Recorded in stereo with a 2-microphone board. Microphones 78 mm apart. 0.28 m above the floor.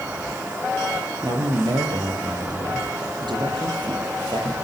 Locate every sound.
1.2 s a man speaking: 60° right (ahead or behind), 8 m; by 4.5 s 75° right (ahead or behind), 8 m